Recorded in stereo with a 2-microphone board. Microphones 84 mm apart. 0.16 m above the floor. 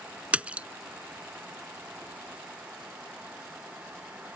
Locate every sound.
0.3 s a splash: 15° right (ahead or behind)